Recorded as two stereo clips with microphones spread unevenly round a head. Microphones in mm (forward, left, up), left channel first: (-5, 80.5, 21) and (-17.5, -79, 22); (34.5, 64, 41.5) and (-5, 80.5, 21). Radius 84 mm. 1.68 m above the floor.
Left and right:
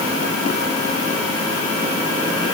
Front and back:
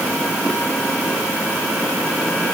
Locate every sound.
Only background noise.